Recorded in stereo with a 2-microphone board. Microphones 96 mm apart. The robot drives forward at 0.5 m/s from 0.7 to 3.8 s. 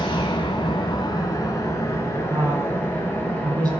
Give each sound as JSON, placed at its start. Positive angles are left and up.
{"t": 0.0, "sound": "an engine running", "side_deg": 55, "distance_m": 0.8}
{"t": 2.3, "sound": "a woman speaking", "side_deg": -35, "distance_m": 2.0}